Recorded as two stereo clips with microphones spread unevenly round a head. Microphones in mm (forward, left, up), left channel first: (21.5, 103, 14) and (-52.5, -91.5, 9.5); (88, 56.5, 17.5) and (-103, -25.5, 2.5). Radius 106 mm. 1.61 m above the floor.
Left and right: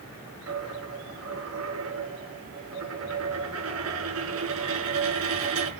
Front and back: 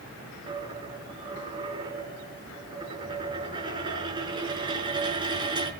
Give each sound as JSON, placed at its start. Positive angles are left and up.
{"t": 0.5, "sound": "a dropped coin", "azimuth_deg": -85, "distance_m": 5.0}